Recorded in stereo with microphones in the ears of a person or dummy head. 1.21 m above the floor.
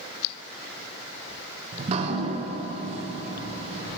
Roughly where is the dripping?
Right.